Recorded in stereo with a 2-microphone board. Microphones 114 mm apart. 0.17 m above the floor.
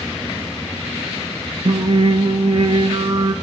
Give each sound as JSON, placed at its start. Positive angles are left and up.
{"t": 1.6, "sound": "singing", "side_deg": -55, "distance_m": 0.8}